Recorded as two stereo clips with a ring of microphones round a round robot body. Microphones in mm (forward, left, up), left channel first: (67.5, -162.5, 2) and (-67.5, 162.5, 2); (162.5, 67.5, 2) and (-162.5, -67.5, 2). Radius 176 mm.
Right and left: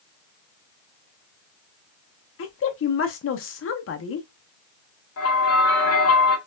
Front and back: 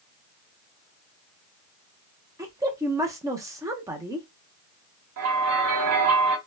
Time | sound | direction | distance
2.4 | a woman speaking | 80° right | 0.6 m
5.2 | a bell | 115° right | 0.9 m